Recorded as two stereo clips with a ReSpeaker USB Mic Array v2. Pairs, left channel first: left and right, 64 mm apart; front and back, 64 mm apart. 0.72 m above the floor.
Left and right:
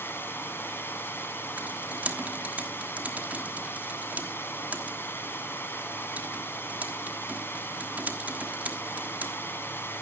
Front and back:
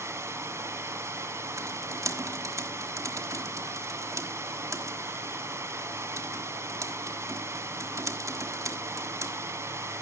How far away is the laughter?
I don't hear laughter.